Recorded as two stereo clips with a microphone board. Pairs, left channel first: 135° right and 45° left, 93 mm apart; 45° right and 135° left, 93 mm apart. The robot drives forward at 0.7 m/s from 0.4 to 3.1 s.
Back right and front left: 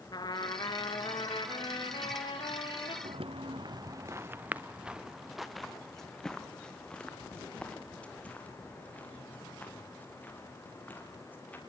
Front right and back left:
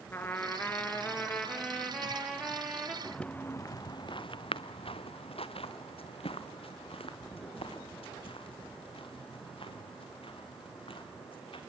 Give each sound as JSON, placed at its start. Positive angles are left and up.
{"t": 0.1, "sound": "a trumpet", "azimuth_deg": -110, "distance_m": 2.5}
{"t": 3.0, "sound": "footsteps", "azimuth_deg": 40, "distance_m": 0.9}